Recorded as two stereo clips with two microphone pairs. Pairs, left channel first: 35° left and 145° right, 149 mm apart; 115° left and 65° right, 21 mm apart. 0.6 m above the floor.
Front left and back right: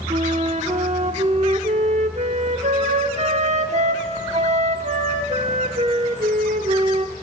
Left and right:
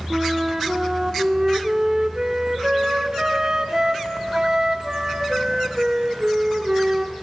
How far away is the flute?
About 1.2 m.